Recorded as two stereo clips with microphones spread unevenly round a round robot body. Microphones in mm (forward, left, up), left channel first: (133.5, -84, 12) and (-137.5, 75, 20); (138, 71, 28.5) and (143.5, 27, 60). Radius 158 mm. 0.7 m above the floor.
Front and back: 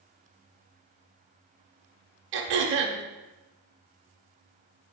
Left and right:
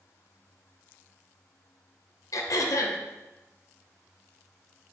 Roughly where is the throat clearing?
Left.